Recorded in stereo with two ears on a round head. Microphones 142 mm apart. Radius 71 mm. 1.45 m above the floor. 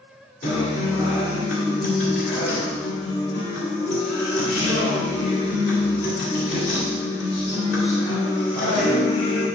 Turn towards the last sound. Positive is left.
turn(degrees=70)  # may be behind; listen again after turning